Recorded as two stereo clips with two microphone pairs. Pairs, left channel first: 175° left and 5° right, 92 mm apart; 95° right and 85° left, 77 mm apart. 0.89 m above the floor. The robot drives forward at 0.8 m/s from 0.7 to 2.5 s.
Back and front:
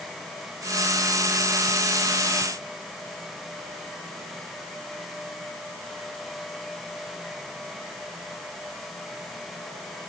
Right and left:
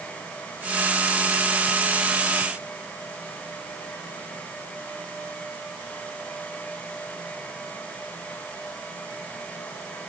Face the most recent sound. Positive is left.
No sound to turn to.